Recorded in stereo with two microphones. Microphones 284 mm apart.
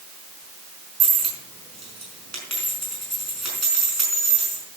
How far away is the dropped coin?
About 5 m.